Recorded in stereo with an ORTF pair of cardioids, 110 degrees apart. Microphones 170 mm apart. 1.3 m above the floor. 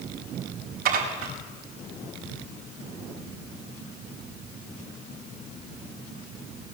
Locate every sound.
0.8 s dishes clattering: 60° right, 4.5 m